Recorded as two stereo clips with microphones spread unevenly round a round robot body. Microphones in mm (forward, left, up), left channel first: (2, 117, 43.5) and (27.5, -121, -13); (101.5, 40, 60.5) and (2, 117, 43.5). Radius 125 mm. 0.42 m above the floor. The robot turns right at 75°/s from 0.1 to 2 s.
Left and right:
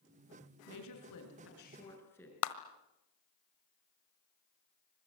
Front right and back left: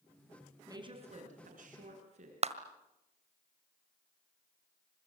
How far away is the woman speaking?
About 6 m.